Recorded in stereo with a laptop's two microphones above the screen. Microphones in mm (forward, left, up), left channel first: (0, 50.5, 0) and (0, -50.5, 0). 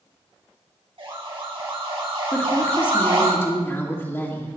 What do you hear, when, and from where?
1.0 s a siren: 65° right (ahead or behind), 6 m; by 3.3 s 70° right (ahead or behind), 7 m
2.3 s a woman speaking: 20° left (ahead or behind), 2 m